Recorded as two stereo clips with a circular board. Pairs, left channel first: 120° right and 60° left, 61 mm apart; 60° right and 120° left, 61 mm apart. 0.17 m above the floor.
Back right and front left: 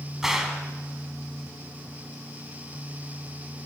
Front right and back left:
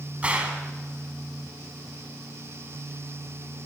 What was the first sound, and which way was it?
A gunshot, 135° left.